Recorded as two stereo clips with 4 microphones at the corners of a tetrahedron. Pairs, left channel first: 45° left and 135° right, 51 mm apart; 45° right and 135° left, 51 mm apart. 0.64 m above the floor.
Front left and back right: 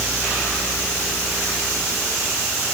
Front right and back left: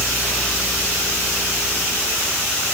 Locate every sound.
Only background noise.